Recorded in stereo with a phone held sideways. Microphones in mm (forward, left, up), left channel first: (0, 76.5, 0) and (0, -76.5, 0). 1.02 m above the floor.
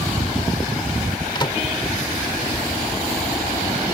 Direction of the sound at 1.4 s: 30° left (ahead or behind).